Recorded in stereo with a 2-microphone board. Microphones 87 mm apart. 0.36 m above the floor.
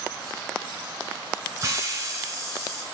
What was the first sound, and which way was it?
A hiss, 35° right (ahead or behind).